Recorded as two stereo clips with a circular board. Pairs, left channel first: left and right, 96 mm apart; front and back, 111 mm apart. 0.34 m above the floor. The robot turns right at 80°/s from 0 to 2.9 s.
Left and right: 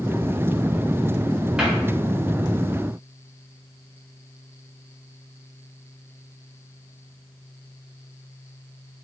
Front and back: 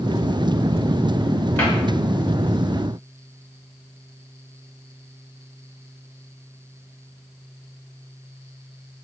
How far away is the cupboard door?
About 1.0 m.